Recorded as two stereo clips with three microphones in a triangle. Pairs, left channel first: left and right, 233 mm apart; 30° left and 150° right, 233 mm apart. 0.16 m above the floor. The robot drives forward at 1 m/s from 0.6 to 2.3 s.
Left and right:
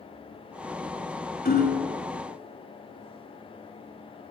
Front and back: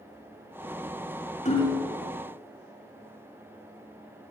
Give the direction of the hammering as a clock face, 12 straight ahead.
10 o'clock.